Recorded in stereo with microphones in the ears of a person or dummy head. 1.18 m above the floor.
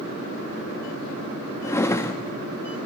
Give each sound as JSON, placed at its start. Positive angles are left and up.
{"t": 1.6, "sound": "a drawer", "side_deg": 10, "distance_m": 0.8}